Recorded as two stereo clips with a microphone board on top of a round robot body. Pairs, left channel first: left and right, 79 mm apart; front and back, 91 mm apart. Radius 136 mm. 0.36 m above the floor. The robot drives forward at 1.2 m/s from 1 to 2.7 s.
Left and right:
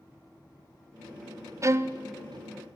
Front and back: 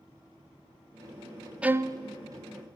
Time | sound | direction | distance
1.6 | a violin | 105° right | 0.7 m